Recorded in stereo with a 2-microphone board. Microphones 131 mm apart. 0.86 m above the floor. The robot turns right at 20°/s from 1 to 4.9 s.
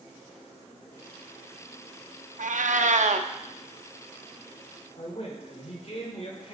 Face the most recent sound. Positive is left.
turn(degrees=50)  # may be behind; listen again after turning